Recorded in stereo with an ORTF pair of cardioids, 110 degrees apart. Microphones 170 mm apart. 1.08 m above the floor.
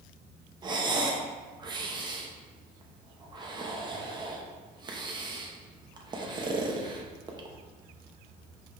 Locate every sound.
0.6 s breathing: 25° right, 1.0 m